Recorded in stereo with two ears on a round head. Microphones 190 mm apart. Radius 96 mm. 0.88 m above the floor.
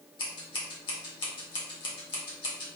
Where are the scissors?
25° left (ahead or behind), 1.3 m.